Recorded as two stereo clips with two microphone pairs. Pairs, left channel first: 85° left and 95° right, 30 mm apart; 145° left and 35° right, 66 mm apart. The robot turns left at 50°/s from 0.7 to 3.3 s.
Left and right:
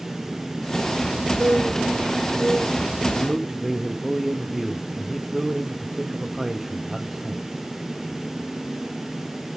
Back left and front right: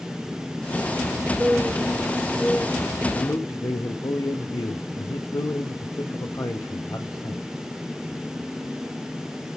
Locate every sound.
1.4 s a bird: 90° right, 0.6 m; by 3.0 s 170° right, 0.6 m
3.1 s a man speaking: straight behind, 1.3 m; by 7.5 s 175° left, 1.3 m